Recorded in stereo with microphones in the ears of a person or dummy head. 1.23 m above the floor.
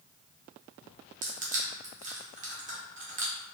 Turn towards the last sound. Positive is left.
turn(degrees=-35)  # may be behind; listen again after turning